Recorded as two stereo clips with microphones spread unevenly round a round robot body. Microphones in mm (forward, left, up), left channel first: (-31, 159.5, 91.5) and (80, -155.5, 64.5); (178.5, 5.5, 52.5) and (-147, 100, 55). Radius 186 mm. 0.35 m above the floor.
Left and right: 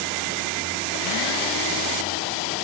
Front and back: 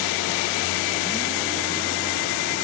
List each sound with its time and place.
Only background noise.